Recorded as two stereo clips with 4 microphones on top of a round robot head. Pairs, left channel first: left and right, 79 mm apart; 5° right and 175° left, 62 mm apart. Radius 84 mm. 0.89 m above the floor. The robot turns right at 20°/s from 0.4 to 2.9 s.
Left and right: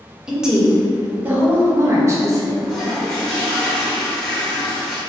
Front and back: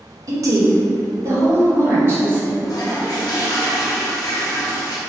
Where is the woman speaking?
175° right, 1.1 m; by 2.5 s 130° right, 1.1 m.